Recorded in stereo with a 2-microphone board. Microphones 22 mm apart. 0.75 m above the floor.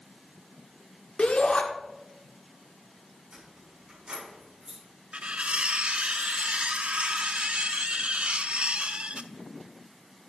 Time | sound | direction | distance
1.2 | a shout | 65° left (ahead or behind) | 1.6 m
3.3 | keys jangling | 45° right (ahead or behind) | 5.5 m
5.1 | cutlery clinking | 75° right (ahead or behind) | 0.6 m